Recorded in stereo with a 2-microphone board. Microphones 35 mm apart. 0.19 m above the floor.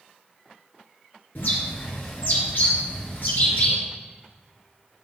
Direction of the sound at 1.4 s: 60° left (ahead or behind).